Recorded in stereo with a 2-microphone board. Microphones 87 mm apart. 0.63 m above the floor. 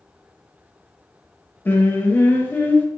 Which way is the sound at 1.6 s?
20° left (ahead or behind).